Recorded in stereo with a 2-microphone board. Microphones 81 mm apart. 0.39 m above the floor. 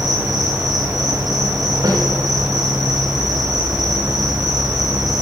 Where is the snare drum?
65° right (ahead or behind), 4.5 m.